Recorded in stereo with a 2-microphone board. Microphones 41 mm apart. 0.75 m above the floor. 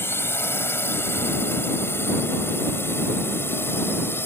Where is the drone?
70° left (ahead or behind).